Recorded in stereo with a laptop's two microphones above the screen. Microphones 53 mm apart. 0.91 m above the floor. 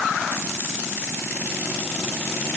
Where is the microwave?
No microwave in this recording.